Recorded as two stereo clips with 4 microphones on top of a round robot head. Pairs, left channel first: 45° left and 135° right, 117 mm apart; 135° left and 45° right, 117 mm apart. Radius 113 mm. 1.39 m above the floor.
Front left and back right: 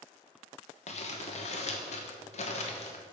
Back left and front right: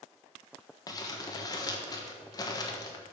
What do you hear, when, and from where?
0.9 s crumpling: 75° left, 1.2 m